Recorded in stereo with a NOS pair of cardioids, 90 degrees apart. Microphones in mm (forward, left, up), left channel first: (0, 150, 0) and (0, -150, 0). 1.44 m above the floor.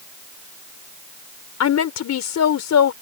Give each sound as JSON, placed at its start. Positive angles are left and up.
{"t": 1.6, "sound": "a woman speaking", "azimuth_deg": 60}